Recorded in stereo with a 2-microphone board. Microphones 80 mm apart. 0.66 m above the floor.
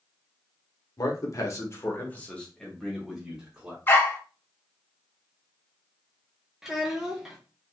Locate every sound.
1.0 s a man speaking: 50° left (ahead or behind), 1.2 m; by 3.8 s 10° right (ahead or behind), 1.9 m
3.9 s a dog barking: 30° left (ahead or behind), 0.7 m
6.6 s a child speaking: 5° right (ahead or behind), 0.5 m